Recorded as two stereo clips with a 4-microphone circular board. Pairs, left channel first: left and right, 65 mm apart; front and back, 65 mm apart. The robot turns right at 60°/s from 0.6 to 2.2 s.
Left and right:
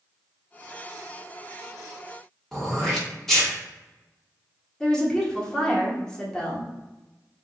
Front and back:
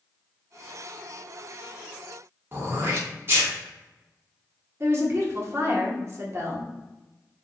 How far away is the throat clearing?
About 1.3 m.